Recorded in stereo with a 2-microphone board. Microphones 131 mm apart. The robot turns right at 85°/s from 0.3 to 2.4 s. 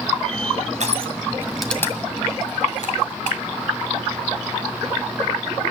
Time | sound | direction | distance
0.8 | crushing | 65° right (ahead or behind) | 1.9 m